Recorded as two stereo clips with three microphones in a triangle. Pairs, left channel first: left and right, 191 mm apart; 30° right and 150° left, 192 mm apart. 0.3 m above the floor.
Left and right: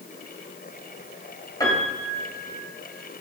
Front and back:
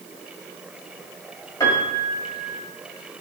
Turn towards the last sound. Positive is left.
turn(degrees=30)